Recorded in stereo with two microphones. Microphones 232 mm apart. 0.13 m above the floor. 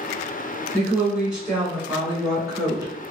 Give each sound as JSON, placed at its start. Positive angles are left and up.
{"t": 0.7, "sound": "a woman speaking", "side_deg": 0, "distance_m": 1.6}